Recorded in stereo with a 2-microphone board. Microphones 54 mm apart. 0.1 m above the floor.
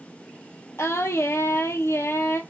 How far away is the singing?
About 0.5 m.